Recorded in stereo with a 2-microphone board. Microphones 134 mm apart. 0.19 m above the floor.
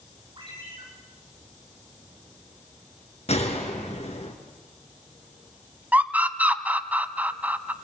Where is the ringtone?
35° right (ahead or behind), 8 m.